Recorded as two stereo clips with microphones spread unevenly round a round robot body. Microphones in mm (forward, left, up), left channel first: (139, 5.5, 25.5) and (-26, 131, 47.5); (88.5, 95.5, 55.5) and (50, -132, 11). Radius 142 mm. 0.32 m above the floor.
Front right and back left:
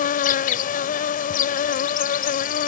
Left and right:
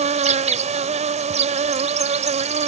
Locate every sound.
0.0 s an insect: 60° right